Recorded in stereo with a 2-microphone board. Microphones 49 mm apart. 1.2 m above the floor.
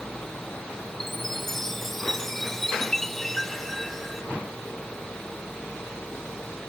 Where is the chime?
5° left (ahead or behind).